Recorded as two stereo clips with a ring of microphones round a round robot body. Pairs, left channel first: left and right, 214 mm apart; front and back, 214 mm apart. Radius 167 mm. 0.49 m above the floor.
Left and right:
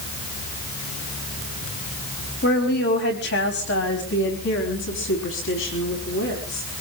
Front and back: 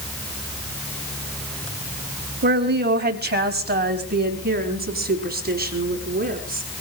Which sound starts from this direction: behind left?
A woman speaking, at 2.4 s.